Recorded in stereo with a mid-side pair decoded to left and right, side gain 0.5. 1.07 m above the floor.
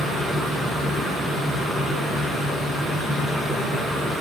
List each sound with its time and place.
0.0 s a fan: 15° right, 1.5 m